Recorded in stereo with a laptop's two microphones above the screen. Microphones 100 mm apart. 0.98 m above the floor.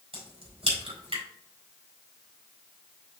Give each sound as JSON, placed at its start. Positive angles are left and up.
{"t": 0.1, "sound": "a crack", "side_deg": -80, "distance_m": 3.5}